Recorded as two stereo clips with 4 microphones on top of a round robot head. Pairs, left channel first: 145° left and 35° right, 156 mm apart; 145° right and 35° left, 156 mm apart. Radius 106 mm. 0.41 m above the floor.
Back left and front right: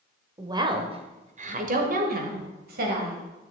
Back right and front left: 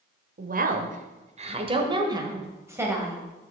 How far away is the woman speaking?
About 1.6 m.